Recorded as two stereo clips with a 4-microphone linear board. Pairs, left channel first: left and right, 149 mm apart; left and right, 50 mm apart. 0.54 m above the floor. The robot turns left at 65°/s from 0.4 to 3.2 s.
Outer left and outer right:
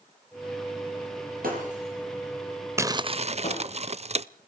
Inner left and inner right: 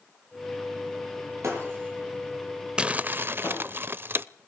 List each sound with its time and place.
1.4 s breaking glass: 70° right (ahead or behind), 7.5 m; by 3.6 s 45° left (ahead or behind), 7.5 m
2.8 s crumpling: 20° right (ahead or behind), 0.5 m; by 4.2 s 45° right (ahead or behind), 0.5 m